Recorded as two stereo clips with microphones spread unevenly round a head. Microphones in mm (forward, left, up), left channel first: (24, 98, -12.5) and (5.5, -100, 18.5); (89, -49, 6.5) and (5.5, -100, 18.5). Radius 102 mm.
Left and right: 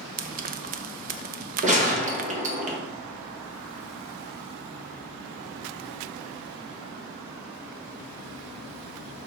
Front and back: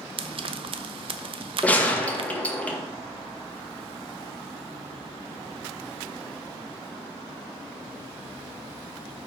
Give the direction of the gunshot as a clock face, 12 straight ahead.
1 o'clock.